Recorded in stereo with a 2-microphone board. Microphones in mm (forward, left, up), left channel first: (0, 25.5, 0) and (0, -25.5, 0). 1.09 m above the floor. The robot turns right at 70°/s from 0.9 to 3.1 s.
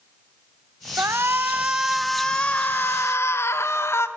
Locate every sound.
1.0 s a shout: 75° right, 1.1 m; by 4.1 s 75° left, 1.1 m